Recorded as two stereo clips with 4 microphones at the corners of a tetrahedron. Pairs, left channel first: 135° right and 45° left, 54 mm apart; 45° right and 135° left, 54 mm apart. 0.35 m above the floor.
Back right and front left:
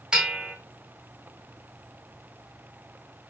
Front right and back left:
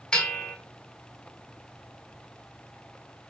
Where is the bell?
Straight ahead, 0.6 m.